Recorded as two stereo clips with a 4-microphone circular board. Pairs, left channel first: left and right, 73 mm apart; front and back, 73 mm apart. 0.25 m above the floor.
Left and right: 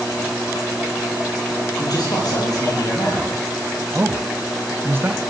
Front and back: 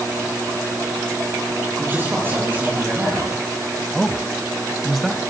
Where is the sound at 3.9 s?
90° right, 1.1 m.